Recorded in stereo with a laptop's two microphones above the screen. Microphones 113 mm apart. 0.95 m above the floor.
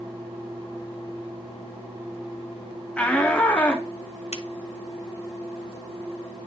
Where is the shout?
10° left (ahead or behind), 0.7 m.